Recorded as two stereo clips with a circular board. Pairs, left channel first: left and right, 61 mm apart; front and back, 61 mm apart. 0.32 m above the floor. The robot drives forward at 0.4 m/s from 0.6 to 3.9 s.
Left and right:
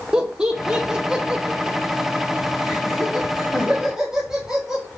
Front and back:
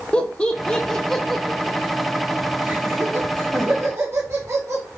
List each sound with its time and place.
0.1 s laughter: 35° right, 0.9 m; by 4.8 s 170° right, 1.4 m